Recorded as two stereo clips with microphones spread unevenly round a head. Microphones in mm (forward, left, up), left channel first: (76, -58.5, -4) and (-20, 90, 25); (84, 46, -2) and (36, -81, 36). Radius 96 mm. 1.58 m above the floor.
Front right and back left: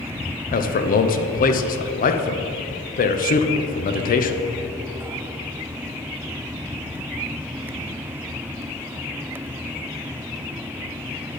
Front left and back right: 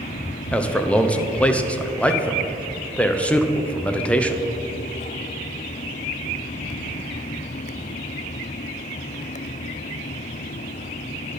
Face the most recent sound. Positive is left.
turn(degrees=-15)